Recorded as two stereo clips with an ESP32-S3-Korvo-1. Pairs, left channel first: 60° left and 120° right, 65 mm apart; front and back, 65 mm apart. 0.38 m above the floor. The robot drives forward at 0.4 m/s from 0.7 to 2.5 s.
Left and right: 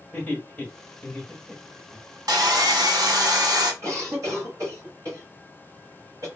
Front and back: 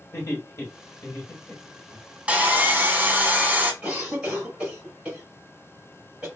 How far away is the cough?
About 2 m.